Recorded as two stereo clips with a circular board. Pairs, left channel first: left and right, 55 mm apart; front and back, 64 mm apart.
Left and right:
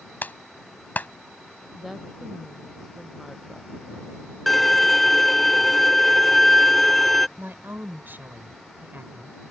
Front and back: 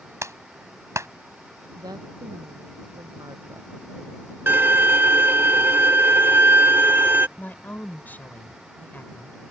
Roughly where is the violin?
Behind.